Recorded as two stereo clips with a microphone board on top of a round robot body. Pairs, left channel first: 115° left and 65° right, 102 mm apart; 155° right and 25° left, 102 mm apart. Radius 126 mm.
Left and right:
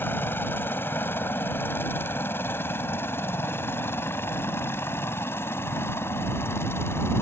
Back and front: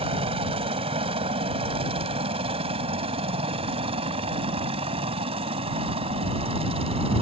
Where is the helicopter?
45° left.